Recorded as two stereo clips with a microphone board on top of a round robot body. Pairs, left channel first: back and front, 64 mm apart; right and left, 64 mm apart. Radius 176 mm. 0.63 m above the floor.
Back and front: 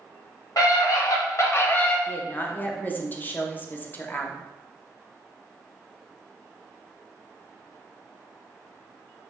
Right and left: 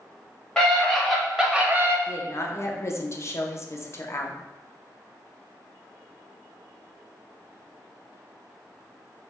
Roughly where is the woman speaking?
Behind right.